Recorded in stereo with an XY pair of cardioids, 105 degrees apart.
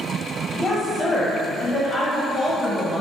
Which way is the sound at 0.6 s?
20° left.